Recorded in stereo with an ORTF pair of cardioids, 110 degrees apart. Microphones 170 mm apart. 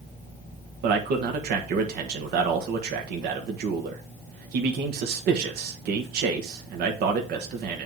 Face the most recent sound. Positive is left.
turn(degrees=-70)